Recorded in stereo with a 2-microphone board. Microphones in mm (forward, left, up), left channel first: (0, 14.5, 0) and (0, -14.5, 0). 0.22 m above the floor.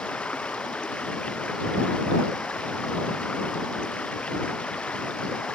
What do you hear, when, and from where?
0.0 s running water: 50° left (ahead or behind)